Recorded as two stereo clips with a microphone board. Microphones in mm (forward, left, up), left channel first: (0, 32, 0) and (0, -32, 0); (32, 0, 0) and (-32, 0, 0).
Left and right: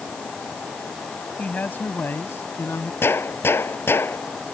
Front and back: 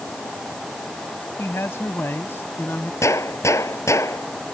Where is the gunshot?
40° left.